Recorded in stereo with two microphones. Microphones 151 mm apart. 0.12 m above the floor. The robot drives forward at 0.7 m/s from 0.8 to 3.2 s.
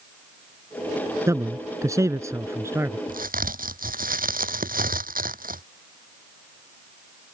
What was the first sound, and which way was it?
A man speaking, 20° right (ahead or behind).